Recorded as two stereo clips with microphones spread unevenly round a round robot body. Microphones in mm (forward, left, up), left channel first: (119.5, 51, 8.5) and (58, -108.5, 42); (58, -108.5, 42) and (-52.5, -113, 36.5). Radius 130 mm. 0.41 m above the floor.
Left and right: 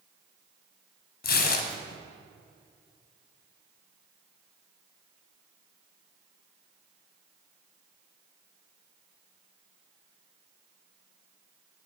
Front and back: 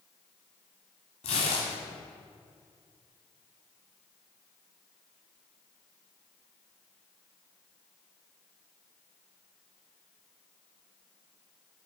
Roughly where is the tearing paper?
Ahead left.